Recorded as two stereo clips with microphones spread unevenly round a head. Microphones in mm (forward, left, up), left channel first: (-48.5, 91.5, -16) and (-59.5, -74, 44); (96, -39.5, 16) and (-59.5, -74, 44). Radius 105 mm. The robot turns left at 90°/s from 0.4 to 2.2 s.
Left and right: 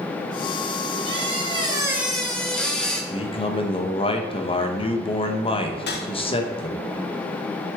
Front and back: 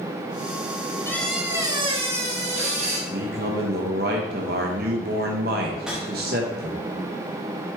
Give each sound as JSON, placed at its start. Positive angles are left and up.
{"t": 1.1, "sound": "a squeak", "azimuth_deg": -65, "distance_m": 1.1}
{"t": 3.1, "sound": "a man speaking", "azimuth_deg": 145, "distance_m": 0.9}
{"t": 5.8, "sound": "a whoosh", "azimuth_deg": 105, "distance_m": 0.9}